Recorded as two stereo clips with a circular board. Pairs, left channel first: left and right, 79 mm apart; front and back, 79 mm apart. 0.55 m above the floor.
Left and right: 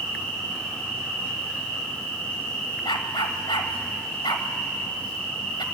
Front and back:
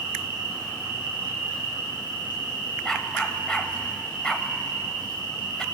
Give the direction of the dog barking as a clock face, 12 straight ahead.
9 o'clock.